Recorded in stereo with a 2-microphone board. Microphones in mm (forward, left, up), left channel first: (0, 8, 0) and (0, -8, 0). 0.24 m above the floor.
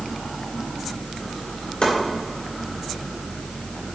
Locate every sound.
1.8 s chopping: 65° left (ahead or behind), 3 m